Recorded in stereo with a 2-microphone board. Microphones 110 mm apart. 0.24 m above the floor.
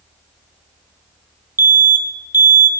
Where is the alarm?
20° right (ahead or behind), 0.6 m.